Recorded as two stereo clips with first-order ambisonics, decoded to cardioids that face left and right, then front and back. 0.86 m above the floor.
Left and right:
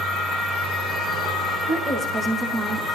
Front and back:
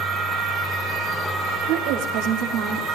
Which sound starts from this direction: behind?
A woman speaking, at 1.7 s.